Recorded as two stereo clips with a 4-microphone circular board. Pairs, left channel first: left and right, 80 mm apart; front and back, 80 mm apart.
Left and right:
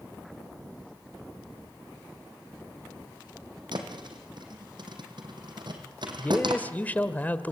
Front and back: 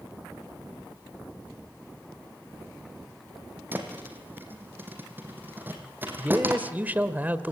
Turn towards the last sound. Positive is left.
turn(degrees=135)